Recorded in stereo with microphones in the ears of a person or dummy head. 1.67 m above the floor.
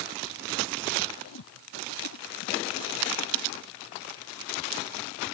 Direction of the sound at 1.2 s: 85° left.